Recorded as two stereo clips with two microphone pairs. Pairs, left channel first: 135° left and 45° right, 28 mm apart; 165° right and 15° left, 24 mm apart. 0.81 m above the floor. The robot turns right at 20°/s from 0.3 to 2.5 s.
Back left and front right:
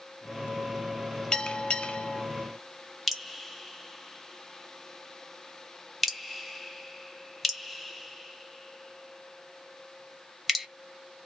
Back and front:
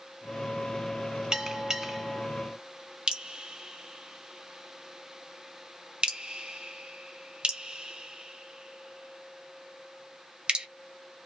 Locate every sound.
1.3 s a bell: 75° left, 0.7 m; by 2.2 s 95° left, 0.7 m
3.1 s dripping: 40° left, 1.0 m